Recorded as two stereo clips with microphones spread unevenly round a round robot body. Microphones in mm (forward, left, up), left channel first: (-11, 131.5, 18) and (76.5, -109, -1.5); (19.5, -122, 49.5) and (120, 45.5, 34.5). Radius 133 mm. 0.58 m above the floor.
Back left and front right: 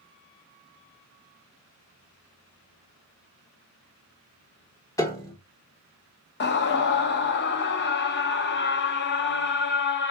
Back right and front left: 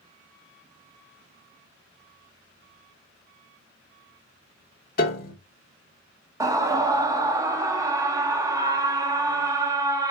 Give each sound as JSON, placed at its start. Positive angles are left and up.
{"t": 5.0, "sound": "a piano", "azimuth_deg": -170, "distance_m": 0.8}
{"t": 6.4, "sound": "a scream", "azimuth_deg": 115, "distance_m": 0.6}